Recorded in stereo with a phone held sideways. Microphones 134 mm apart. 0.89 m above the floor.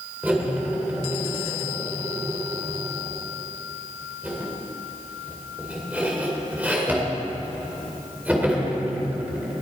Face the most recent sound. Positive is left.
turn(degrees=-10)  # may be behind; listen again after turning